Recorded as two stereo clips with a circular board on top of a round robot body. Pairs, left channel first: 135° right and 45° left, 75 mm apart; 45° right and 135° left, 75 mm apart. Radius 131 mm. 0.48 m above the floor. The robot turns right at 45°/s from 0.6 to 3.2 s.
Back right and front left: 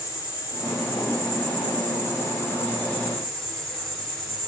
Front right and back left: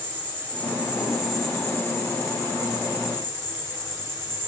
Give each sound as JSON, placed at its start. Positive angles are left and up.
{"t": 0.0, "sound": "an insect", "azimuth_deg": -160, "distance_m": 5.0}